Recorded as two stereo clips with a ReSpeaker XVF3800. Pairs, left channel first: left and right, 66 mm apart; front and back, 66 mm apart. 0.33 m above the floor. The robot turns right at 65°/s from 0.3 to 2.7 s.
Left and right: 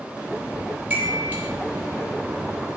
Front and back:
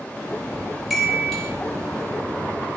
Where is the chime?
105° right, 1.0 m; by 1.5 s 65° right, 1.0 m.